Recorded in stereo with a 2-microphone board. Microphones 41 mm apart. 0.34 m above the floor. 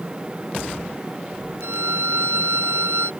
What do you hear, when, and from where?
1.6 s a violin: 80° right